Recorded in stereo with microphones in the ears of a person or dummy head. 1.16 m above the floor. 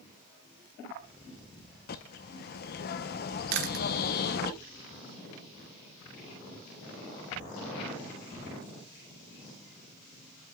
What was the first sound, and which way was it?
A bird, 50° left (ahead or behind).